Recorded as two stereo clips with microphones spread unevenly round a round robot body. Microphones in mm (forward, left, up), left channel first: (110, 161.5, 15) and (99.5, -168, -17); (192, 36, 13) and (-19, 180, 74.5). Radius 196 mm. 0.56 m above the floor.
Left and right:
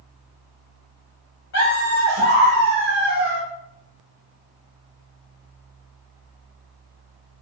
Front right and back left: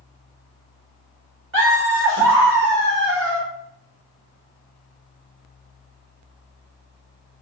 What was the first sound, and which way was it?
Laughter, 110° left.